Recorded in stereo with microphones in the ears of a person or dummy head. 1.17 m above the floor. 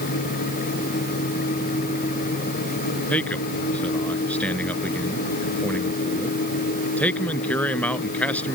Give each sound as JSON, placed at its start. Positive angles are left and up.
{"t": 3.1, "sound": "a man speaking", "side_deg": 10}